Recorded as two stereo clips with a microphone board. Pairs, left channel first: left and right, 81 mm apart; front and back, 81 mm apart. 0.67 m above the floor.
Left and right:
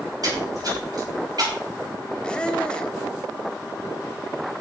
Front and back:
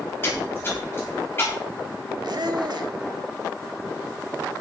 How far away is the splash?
About 5 m.